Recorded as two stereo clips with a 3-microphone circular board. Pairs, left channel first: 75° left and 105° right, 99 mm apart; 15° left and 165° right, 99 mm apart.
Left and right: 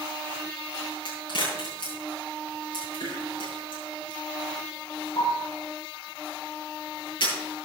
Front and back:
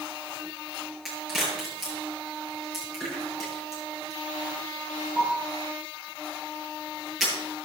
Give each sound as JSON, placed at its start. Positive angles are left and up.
{"t": 1.1, "sound": "a crack", "azimuth_deg": 105, "distance_m": 8.0}